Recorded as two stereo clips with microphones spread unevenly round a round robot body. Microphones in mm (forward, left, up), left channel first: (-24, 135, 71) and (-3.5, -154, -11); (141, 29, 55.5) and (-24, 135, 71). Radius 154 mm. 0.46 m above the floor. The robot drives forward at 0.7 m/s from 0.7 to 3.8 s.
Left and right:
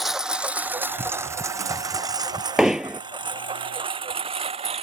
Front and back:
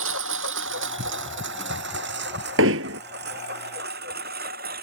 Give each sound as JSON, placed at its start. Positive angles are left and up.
{"t": 0.0, "sound": "a lawn mower", "azimuth_deg": -175}
{"t": 2.6, "sound": "hammering", "azimuth_deg": -175}